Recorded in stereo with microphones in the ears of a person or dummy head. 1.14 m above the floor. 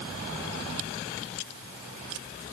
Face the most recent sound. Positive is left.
No sound to turn to.